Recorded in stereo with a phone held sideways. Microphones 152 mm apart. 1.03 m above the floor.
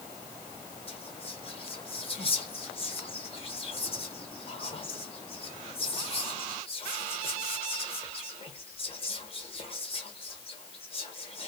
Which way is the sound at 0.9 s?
35° left (ahead or behind).